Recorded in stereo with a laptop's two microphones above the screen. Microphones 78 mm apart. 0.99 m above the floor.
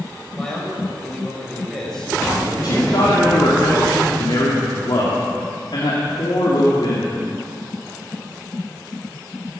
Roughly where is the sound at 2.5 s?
Left.